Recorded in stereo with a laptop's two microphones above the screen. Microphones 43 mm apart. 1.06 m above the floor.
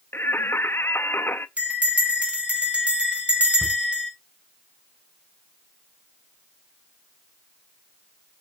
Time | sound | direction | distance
0.1 | singing | 65° left (ahead or behind) | 0.6 m
1.6 | a bell | 30° right (ahead or behind) | 3.5 m
3.6 | a thud | 55° right (ahead or behind) | 4 m